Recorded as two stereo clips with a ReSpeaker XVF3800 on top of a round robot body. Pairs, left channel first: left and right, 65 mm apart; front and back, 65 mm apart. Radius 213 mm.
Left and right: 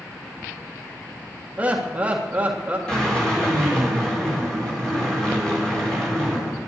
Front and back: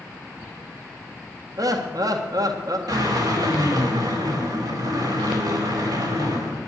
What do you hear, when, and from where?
1.6 s laughter: 160° right, 1.8 m
2.9 s a drill: 170° left, 5 m